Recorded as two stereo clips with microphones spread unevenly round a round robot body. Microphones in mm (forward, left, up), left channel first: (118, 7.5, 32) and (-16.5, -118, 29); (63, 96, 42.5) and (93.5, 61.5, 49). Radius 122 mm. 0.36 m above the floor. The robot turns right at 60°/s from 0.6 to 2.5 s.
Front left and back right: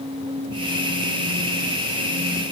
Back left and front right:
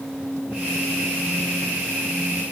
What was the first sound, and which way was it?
Only background noise.